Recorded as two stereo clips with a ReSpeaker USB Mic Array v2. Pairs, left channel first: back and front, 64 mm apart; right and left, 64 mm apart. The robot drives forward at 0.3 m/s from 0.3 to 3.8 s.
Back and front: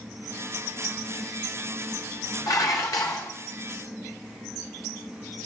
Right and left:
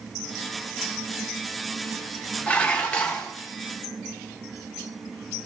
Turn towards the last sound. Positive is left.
turn(degrees=-165)